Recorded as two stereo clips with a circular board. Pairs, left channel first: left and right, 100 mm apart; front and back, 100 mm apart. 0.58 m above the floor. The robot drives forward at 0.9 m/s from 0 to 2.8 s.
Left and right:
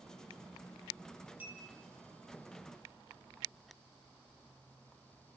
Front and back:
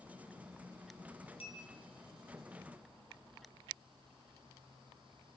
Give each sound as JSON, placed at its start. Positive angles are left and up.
{"t": 1.4, "sound": "a bell", "azimuth_deg": -15, "distance_m": 4.5}